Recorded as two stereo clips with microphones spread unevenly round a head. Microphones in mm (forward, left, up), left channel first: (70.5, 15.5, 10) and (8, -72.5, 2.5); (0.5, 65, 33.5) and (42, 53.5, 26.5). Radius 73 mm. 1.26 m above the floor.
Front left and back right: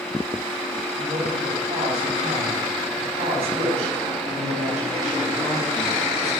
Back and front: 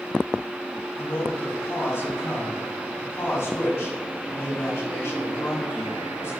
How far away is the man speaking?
About 4 m.